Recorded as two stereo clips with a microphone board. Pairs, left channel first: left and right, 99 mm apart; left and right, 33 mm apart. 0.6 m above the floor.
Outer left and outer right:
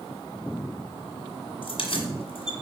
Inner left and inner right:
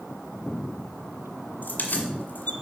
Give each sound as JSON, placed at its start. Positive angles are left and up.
{"t": 1.6, "sound": "keys jangling", "side_deg": 70, "distance_m": 1.8}